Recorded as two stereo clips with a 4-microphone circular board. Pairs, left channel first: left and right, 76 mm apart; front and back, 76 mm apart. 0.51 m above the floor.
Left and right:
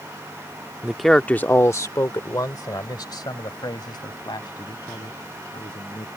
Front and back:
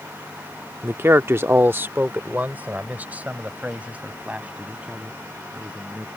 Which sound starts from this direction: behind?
A man speaking, at 0.8 s.